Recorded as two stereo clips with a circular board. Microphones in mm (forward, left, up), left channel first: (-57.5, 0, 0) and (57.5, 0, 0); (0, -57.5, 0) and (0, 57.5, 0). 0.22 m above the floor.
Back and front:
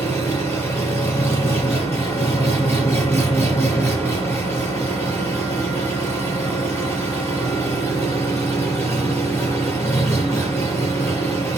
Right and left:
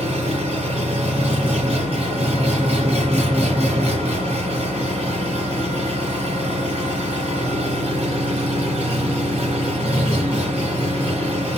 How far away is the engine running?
About 4.5 m.